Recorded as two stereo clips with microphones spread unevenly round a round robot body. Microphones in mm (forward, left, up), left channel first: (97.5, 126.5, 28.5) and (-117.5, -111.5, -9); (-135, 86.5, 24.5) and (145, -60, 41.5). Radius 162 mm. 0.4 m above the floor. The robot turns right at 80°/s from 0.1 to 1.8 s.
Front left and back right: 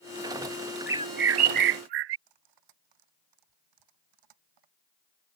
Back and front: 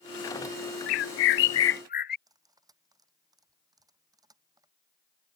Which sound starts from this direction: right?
Cutlery clinking, at 2.3 s.